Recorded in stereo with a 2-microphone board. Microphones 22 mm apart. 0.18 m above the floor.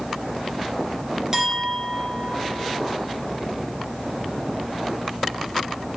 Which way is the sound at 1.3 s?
25° right (ahead or behind).